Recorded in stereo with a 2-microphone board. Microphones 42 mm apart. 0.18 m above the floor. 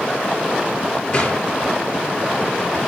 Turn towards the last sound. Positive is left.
turn(degrees=30)  # may be behind; listen again after turning